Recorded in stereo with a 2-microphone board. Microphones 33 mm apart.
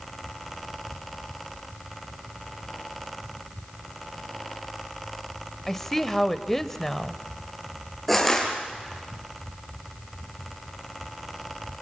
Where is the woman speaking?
10° left (ahead or behind), 1.1 m.